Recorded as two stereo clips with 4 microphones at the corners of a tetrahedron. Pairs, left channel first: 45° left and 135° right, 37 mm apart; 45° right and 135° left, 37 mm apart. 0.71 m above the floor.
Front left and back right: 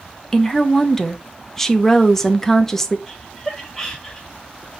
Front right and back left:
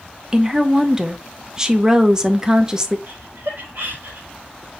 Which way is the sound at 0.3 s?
105° left.